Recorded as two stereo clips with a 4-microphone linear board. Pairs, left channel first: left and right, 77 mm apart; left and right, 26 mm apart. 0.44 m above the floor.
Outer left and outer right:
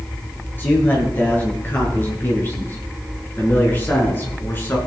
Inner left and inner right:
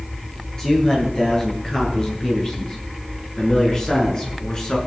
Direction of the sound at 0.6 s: 25° left (ahead or behind).